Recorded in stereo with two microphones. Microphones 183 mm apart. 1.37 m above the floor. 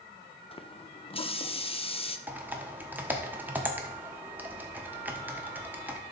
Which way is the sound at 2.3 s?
10° right (ahead or behind).